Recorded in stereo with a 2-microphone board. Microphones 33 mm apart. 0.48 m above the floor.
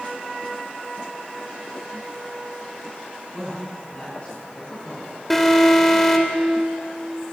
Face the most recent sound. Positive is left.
turn(degrees=5)  # may be behind; listen again after turning